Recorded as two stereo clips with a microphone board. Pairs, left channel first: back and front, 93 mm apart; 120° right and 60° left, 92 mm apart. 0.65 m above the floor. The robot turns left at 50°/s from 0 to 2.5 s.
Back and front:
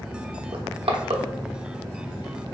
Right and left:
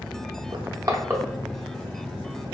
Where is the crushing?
25° left, 0.6 m; by 1.2 s 10° right, 0.6 m.